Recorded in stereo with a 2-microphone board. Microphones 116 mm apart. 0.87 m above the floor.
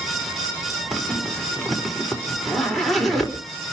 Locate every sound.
0.9 s a zipper: centre (ahead or behind), 3.5 m